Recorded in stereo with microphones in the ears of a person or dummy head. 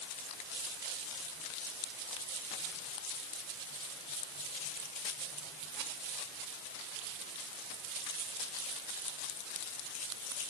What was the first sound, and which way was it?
Only background noise.